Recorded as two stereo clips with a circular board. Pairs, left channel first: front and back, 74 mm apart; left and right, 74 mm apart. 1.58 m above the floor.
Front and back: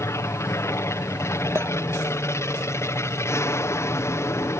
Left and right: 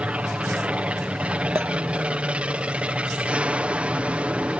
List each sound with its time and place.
0.0 s an aircraft: 25° right
1.6 s a clink: 135° right